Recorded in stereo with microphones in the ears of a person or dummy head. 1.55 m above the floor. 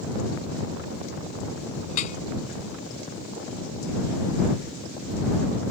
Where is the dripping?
40° left (ahead or behind).